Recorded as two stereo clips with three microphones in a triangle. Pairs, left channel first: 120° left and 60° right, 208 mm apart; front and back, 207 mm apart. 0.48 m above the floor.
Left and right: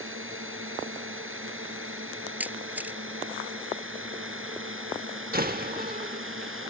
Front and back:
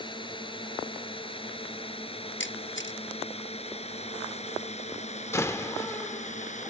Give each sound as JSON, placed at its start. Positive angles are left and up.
{"t": 0.0, "sound": "a drone", "azimuth_deg": -65}
{"t": 2.4, "sound": "a camera shutter", "azimuth_deg": 20}
{"t": 5.3, "sound": "a door slam", "azimuth_deg": -75}